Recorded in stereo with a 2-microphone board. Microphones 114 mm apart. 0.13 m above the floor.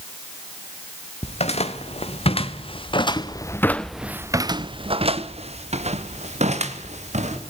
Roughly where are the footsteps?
Left.